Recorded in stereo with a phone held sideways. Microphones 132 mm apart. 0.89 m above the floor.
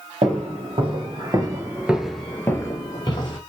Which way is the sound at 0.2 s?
55° right (ahead or behind).